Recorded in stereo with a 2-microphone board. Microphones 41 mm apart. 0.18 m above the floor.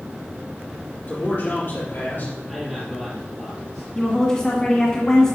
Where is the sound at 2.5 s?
5° left (ahead or behind), 3.5 m.